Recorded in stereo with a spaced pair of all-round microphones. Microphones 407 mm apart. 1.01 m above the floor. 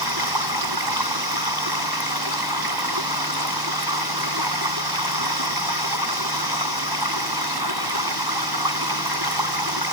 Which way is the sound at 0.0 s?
75° right (ahead or behind).